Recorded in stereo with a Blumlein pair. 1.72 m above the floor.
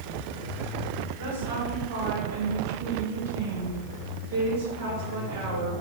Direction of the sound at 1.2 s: 55° right.